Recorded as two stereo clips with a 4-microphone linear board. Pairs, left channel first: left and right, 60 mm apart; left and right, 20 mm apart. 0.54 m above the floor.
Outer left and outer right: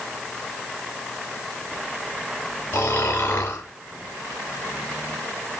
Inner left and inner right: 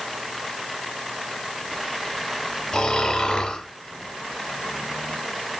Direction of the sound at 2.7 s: 35° left (ahead or behind).